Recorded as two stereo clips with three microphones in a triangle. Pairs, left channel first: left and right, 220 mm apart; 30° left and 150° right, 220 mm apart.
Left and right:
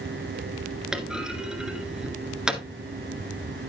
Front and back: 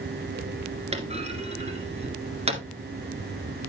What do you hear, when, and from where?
0.9 s a clunk: 175° right, 1.9 m